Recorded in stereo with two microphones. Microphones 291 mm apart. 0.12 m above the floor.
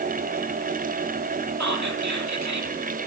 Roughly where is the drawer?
I don't hear a drawer.